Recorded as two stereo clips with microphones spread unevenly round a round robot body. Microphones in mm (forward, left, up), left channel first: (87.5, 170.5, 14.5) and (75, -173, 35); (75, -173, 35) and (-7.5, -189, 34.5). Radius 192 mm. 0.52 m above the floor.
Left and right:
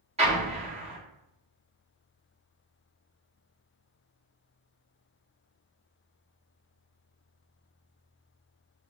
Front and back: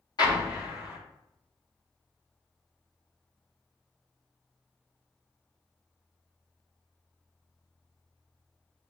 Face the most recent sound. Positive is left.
turn(degrees=-20)